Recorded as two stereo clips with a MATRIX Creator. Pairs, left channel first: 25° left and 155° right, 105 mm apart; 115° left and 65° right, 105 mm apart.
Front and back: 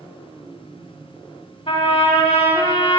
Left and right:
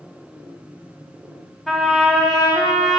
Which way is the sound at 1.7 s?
25° left.